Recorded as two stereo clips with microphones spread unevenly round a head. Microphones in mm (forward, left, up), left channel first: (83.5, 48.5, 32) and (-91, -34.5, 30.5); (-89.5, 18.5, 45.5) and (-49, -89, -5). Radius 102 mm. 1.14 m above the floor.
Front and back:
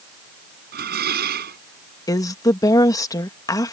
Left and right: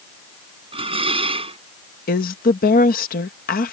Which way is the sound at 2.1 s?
100° left.